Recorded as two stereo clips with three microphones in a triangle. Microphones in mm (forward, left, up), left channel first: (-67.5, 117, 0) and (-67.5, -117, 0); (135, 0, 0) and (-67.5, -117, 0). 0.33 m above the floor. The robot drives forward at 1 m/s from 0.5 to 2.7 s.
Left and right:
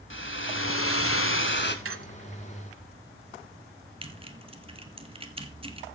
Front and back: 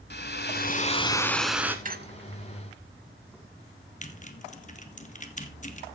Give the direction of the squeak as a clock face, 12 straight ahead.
3 o'clock.